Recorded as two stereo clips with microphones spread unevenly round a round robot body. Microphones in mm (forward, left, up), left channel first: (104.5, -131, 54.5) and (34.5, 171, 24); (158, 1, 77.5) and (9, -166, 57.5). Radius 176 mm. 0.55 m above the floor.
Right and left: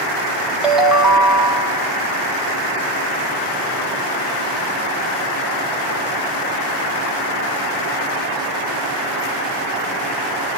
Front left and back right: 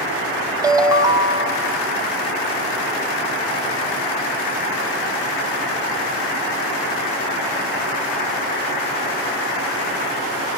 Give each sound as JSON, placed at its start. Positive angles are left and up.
{"t": 0.6, "sound": "a ringtone", "azimuth_deg": 180, "distance_m": 0.6}